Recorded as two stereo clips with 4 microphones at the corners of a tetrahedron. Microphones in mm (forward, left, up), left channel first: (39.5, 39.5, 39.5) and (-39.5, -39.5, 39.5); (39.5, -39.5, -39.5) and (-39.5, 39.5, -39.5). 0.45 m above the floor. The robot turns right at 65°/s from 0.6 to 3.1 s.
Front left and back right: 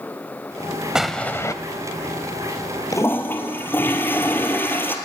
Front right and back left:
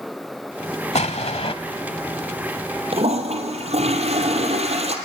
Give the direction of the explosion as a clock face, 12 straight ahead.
2 o'clock.